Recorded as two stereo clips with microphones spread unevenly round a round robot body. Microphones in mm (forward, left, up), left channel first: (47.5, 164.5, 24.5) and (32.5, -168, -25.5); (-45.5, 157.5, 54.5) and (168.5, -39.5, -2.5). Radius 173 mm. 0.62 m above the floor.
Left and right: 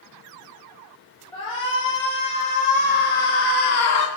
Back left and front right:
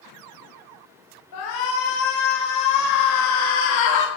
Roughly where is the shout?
Behind.